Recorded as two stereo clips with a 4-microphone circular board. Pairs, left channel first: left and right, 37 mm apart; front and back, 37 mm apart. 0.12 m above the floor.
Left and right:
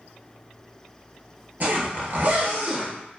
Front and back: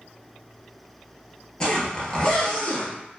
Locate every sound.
1.6 s a zipper: 65° right, 0.8 m